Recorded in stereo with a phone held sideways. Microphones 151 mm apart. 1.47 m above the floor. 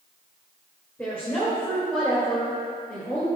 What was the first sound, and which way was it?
A woman speaking, 15° left (ahead or behind).